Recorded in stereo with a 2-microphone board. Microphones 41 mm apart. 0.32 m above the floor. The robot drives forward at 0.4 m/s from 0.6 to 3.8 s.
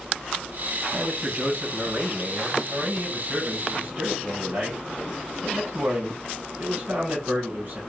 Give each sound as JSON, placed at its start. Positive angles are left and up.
{"t": 0.9, "sound": "a man speaking", "side_deg": -60, "distance_m": 2.0}